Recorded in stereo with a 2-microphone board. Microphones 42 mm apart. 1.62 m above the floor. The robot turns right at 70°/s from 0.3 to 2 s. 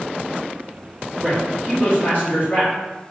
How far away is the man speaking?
About 1.7 m.